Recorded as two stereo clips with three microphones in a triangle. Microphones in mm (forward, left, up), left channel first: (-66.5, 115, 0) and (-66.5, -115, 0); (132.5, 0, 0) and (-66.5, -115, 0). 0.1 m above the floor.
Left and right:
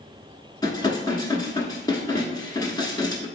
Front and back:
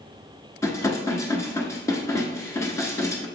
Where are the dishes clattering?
75° left, 0.8 m.